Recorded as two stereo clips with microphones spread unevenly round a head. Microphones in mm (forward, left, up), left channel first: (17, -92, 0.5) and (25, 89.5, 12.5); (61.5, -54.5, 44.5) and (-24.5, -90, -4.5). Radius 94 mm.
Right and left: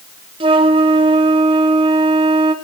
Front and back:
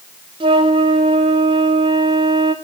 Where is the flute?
155° left, 0.7 m.